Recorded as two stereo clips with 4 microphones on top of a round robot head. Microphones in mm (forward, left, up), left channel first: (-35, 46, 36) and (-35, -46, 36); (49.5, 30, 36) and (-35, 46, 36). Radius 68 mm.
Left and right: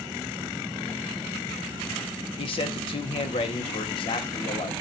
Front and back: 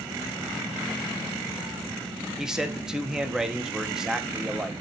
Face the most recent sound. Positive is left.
turn(degrees=85)